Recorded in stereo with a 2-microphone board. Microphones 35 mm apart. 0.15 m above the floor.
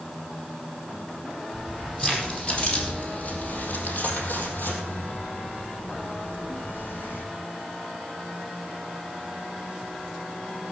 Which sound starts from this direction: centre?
Keys jangling, at 1.5 s.